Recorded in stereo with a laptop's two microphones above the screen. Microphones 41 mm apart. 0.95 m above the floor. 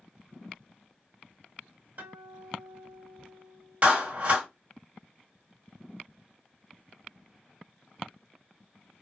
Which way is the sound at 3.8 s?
35° right (ahead or behind).